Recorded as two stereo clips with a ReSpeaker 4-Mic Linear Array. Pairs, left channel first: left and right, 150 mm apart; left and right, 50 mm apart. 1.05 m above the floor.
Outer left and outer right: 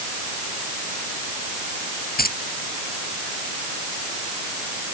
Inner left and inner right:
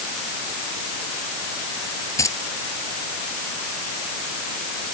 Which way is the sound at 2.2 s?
90° left.